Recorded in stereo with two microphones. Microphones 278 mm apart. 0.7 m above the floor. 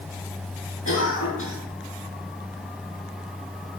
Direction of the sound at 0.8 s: 50° left (ahead or behind).